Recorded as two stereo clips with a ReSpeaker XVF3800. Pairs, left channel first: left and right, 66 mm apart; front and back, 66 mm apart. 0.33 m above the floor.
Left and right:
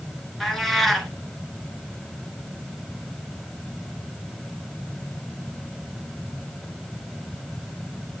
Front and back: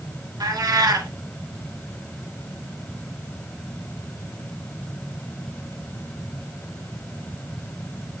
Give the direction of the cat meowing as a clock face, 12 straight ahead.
6 o'clock.